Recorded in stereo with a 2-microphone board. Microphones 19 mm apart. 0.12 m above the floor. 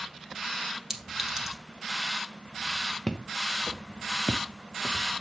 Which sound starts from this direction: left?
Footsteps, at 3.1 s.